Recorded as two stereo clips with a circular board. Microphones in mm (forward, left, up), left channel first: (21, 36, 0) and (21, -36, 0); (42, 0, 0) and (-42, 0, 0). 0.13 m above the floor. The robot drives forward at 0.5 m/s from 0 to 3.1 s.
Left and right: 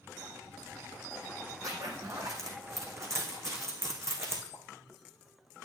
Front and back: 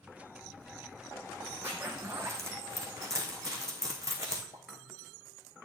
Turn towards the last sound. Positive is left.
turn(degrees=-155)